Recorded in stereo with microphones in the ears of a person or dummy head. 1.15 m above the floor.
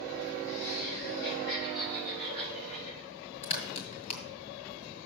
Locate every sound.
0.5 s laughter: 90° left, 1.2 m; by 3.1 s 45° left (ahead or behind), 4.5 m
3.4 s a crack: 40° left (ahead or behind), 2 m